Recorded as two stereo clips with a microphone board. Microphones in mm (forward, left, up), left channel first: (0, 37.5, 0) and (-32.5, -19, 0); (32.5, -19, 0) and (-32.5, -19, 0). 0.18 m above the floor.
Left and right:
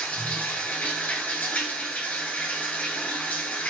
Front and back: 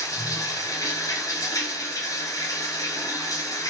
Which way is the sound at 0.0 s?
Straight ahead.